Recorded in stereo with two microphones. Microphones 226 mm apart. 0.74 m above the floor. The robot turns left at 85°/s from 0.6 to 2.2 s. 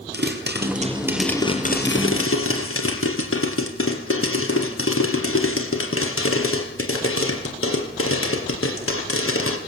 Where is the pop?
130° right, 4 m; by 9.6 s 95° left, 4 m.